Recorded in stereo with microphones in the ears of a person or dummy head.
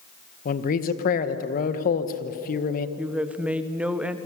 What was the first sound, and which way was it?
A man speaking, 50° left (ahead or behind).